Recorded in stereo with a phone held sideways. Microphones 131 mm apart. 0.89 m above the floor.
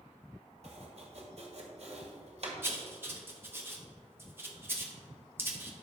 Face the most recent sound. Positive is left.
turn(degrees=-15)  # may be behind; listen again after turning